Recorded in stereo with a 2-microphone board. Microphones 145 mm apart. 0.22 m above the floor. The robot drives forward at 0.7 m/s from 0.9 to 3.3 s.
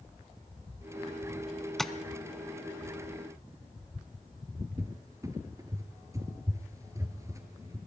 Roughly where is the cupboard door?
Right.